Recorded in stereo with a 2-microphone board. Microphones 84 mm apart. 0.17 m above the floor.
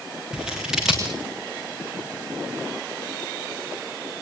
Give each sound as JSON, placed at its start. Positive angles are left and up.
{"t": 0.3, "sound": "scissors", "side_deg": -10, "distance_m": 5.0}